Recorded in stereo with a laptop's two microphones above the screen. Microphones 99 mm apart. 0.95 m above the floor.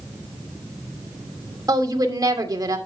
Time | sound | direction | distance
1.7 | a woman speaking | 35° right (ahead or behind) | 2 m